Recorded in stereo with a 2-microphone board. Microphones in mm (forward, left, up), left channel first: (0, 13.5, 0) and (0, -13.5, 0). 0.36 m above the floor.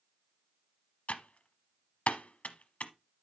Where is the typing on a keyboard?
65° left (ahead or behind), 0.9 m.